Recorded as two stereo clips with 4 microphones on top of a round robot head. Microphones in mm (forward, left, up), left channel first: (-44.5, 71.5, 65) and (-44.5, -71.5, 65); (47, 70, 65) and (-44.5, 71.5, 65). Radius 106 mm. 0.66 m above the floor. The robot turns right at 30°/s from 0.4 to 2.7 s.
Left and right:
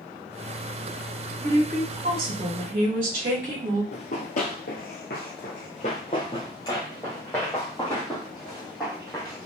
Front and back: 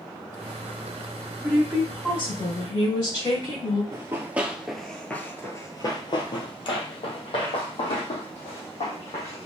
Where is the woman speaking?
95° right, 3 m; by 3.8 s 55° right, 3 m.